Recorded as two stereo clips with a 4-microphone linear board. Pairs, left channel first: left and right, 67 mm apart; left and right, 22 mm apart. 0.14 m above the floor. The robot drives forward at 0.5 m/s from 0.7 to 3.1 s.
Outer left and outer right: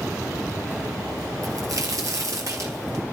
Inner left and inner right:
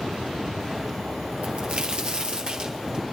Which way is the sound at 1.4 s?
60° right (ahead or behind).